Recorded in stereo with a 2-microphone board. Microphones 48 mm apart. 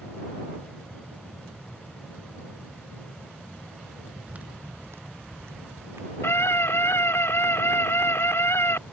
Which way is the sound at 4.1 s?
20° right (ahead or behind).